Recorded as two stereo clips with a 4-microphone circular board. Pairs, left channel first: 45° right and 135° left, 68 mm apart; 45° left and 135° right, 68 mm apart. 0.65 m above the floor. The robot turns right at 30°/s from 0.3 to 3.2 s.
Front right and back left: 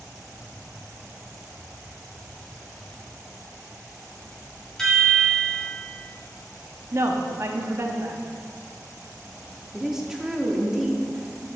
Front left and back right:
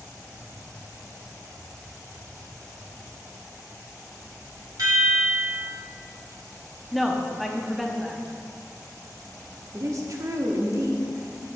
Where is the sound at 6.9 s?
135° left, 0.7 m.